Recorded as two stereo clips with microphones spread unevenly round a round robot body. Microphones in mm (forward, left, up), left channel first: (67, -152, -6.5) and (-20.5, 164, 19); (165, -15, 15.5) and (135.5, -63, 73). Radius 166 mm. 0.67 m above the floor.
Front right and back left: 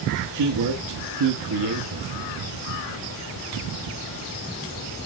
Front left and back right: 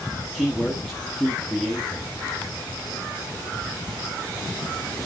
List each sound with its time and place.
0.3 s a man speaking: 90° left, 1.5 m